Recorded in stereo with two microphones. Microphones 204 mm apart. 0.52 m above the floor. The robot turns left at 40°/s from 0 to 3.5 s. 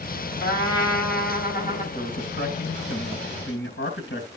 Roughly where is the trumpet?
Left.